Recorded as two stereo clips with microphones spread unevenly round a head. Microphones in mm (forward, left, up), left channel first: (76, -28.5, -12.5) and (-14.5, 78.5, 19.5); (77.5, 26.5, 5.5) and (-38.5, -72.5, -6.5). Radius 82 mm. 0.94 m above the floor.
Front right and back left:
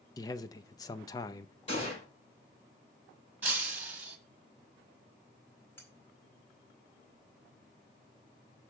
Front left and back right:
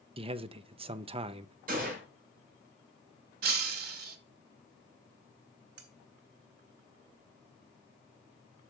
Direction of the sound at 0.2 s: 100° right.